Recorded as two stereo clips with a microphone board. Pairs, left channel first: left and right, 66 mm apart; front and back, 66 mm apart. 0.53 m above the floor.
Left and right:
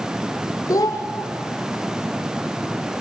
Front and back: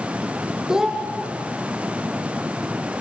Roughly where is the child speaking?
Left.